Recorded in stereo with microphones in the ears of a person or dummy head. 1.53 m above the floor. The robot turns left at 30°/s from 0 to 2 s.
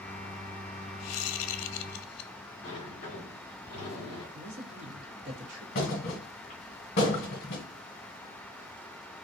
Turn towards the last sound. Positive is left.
turn(degrees=25)  # may be behind; listen again after turning